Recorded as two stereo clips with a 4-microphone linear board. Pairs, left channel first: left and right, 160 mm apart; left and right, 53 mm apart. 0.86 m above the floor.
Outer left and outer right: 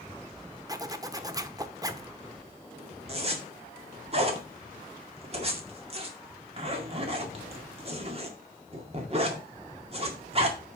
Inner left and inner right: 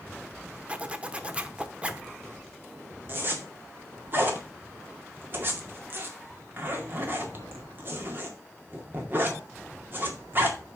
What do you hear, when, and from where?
0.7 s a zipper: 25° right (ahead or behind), 0.8 m
3.1 s a zipper: 40° right (ahead or behind), 2.0 m